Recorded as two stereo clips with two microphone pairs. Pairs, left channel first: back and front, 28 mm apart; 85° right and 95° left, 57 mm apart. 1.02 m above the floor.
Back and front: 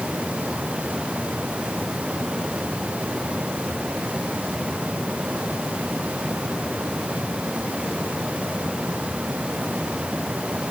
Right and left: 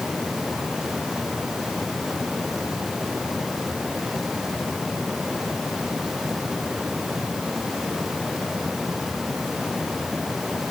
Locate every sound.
Only background noise.